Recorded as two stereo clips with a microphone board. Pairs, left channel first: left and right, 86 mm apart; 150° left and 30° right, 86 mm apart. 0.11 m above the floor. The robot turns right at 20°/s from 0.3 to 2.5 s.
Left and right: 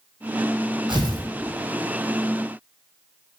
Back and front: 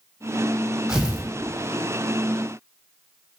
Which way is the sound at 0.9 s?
110° right.